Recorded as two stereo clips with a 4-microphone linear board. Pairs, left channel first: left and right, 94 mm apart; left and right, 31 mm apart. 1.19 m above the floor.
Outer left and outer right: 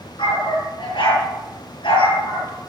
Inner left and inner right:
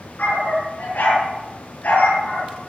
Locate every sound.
0.2 s a dog barking: 65° left (ahead or behind), 7 m